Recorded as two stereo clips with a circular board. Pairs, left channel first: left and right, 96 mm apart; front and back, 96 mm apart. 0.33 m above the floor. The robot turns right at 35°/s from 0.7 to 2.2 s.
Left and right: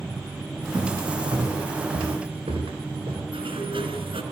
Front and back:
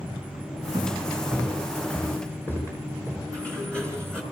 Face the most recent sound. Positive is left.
turn(degrees=-80)